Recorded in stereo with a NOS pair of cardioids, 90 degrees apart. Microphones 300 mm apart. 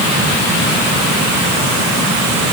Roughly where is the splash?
I don't hear a splash.